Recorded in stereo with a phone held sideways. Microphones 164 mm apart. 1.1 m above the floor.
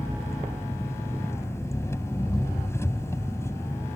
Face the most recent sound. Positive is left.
turn(degrees=15)  # may be behind; listen again after turning